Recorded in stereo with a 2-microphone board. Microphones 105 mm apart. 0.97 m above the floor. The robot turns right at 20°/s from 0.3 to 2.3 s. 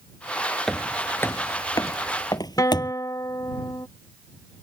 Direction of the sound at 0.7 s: 5° left (ahead or behind).